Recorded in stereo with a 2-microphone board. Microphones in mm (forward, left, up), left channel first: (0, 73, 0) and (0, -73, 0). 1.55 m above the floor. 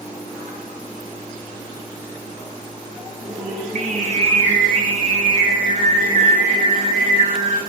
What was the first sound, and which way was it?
Singing, 60° right (ahead or behind).